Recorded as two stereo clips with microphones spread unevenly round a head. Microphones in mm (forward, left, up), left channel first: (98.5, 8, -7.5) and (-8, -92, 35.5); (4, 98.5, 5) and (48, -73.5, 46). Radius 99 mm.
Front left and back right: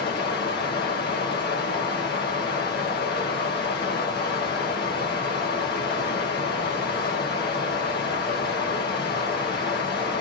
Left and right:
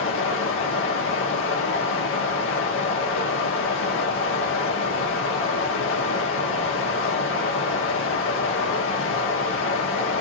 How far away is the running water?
About 0.9 m.